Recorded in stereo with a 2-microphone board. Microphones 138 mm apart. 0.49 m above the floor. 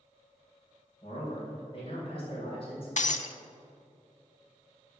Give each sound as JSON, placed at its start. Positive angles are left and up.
{"t": 1.0, "sound": "a man speaking", "side_deg": 40, "distance_m": 3.0}
{"t": 3.0, "sound": "breaking glass", "side_deg": 60, "distance_m": 0.6}